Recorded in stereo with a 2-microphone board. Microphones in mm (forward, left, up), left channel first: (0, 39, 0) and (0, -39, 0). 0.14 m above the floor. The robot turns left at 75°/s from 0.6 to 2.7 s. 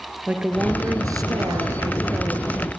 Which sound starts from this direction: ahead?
A woman speaking, at 0.3 s.